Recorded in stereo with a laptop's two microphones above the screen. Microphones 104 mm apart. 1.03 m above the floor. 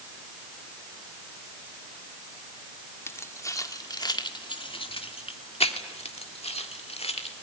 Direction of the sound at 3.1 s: 25° left (ahead or behind).